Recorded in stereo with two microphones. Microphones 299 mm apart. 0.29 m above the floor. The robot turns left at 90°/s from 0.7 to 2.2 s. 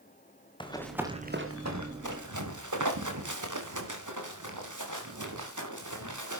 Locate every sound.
0.6 s running footsteps: 15° left (ahead or behind), 3 m; by 6.4 s 80° right, 5 m